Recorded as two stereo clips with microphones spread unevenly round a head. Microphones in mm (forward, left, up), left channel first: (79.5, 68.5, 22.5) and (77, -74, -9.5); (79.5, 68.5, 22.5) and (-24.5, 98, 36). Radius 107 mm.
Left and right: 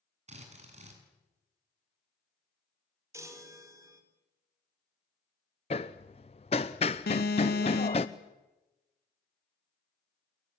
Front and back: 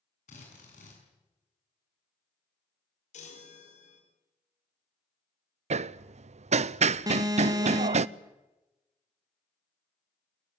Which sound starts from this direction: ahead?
A chime, at 3.1 s.